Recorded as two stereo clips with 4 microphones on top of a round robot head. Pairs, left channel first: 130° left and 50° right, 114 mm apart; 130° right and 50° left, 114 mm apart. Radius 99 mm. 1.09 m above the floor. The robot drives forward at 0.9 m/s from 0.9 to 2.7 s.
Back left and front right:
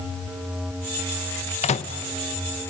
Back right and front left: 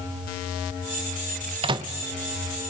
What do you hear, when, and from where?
1.6 s a microwave: 95° left, 0.7 m; by 1.9 s 115° left, 0.8 m